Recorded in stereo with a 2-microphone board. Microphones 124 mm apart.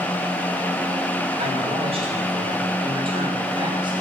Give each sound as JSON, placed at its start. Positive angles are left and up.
{"t": 1.4, "sound": "a man speaking", "side_deg": -50, "distance_m": 8.0}